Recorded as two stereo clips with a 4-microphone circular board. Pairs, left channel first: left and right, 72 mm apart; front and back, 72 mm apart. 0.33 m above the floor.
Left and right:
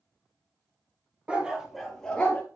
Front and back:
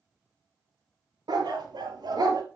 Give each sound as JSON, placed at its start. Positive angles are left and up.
{"t": 1.3, "sound": "a dog barking", "azimuth_deg": -165, "distance_m": 2.0}